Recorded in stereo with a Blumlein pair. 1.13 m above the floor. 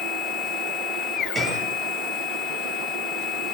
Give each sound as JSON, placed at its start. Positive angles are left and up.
{"t": 0.0, "sound": "a machine running", "azimuth_deg": 30, "distance_m": 0.8}
{"t": 1.4, "sound": "a gunshot", "azimuth_deg": -15, "distance_m": 8.5}